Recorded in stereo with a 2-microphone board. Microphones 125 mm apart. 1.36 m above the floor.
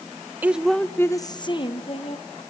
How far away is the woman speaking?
About 0.7 m.